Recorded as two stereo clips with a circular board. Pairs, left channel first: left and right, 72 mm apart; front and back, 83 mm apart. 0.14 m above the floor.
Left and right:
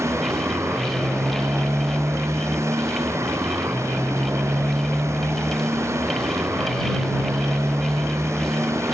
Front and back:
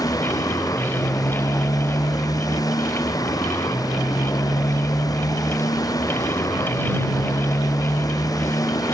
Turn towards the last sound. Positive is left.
turn(degrees=-40)